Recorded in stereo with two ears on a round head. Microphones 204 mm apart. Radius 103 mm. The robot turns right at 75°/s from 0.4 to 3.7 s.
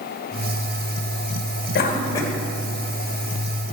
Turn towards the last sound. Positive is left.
turn(degrees=-80)